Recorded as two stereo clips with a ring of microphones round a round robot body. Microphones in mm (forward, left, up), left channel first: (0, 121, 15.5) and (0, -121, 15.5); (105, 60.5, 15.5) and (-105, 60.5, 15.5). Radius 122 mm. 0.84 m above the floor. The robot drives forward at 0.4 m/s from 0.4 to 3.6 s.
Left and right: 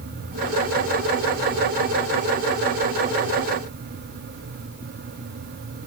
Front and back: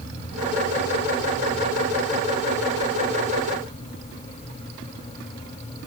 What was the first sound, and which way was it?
Only background noise.